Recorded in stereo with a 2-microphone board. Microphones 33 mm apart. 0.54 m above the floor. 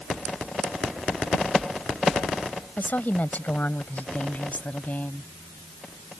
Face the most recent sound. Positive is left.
turn(degrees=50)  # may be behind; listen again after turning